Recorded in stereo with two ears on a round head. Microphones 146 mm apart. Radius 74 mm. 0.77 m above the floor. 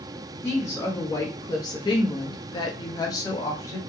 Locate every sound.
0.4 s a woman speaking: 10° left (ahead or behind), 1.0 m; by 3.8 s 20° left (ahead or behind), 1.0 m